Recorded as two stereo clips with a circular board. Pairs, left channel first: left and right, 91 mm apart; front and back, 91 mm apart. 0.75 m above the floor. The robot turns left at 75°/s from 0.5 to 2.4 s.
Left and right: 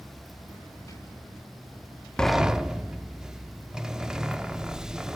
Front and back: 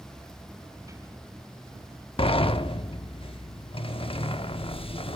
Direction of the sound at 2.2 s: 10° left.